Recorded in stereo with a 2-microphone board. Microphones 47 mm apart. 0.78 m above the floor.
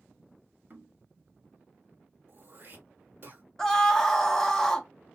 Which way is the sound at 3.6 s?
10° left (ahead or behind).